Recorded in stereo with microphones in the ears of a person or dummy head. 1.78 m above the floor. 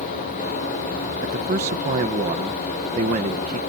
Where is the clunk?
I don't hear a clunk.